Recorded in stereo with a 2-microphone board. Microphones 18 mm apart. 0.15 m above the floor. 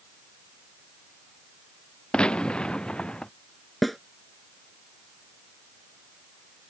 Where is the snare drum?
5° left (ahead or behind).